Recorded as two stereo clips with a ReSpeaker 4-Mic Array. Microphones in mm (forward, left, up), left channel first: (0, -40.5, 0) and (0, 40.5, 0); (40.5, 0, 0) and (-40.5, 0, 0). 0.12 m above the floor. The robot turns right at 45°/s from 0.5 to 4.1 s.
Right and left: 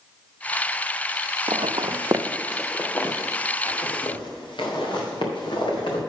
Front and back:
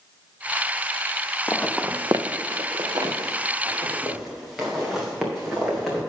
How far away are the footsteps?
About 0.7 m.